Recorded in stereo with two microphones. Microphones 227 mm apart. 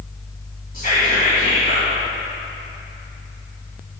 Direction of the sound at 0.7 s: 40° left (ahead or behind).